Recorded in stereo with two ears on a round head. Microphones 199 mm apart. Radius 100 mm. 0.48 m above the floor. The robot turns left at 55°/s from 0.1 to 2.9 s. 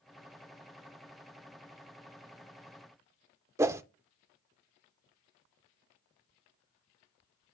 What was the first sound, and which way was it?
A whoosh, 15° right (ahead or behind).